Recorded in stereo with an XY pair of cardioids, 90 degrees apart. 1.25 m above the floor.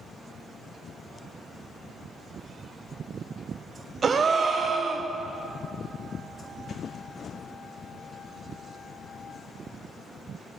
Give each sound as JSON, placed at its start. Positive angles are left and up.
{"t": 4.0, "sound": "a gasp", "azimuth_deg": -50, "distance_m": 0.6}